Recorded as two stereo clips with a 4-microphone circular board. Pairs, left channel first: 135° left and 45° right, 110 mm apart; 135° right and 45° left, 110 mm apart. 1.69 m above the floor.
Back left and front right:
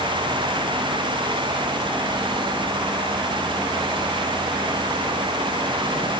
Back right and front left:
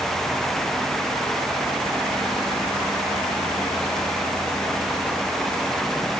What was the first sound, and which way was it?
Only background noise.